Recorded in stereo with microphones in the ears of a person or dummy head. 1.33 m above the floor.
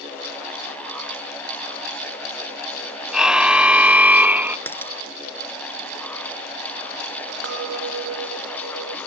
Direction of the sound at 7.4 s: 85° right.